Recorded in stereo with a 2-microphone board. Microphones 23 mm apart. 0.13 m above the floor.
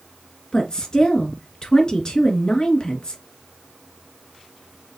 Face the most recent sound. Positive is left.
turn(degrees=35)  # may be behind; listen again after turning